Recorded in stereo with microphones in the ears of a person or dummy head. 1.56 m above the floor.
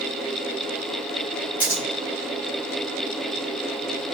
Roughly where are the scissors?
Centre.